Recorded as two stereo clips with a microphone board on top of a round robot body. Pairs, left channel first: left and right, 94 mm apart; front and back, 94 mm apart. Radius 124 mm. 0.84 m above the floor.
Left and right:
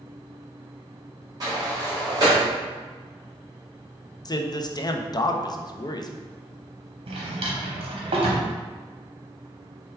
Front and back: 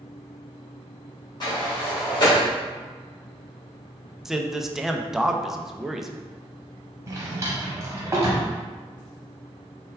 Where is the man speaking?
95° left, 0.5 m.